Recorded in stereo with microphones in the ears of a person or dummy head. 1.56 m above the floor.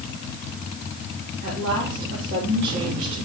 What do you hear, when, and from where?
1.4 s a woman speaking: 60° right (ahead or behind), 3.5 m